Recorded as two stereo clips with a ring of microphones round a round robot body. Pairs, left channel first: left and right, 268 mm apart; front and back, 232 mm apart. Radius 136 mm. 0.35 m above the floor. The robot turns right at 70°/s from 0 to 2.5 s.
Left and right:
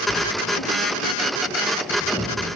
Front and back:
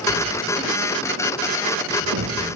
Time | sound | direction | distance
0.1 | writing | 30° left | 6 m